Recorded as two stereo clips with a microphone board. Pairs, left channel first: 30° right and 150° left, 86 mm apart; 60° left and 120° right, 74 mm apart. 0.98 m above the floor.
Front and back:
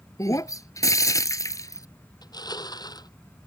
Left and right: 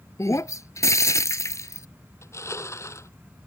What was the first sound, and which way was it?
Breaking glass, 20° left.